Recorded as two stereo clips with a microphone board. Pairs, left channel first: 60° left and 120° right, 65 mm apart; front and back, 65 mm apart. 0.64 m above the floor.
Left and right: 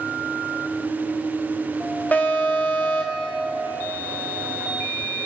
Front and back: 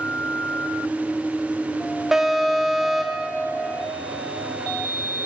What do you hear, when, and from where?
2.1 s an alarm: 100° left, 2 m